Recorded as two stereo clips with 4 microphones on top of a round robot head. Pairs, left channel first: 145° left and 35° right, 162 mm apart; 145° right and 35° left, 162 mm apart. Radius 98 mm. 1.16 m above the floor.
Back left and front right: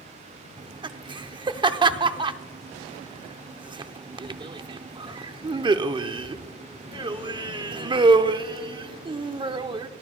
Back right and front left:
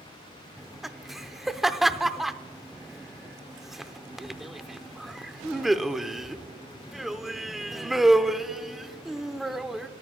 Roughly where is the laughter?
Ahead right.